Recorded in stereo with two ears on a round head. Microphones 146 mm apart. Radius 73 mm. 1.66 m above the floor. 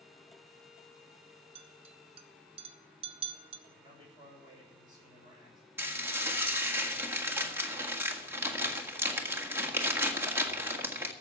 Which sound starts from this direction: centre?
Dishes clattering, at 5.8 s.